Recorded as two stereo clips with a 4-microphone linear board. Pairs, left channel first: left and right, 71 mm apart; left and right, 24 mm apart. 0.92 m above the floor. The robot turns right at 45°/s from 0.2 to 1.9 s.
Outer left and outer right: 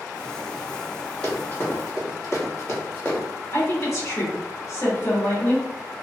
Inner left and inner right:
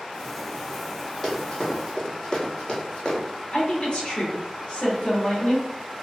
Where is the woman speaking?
45° left (ahead or behind), 1.0 m.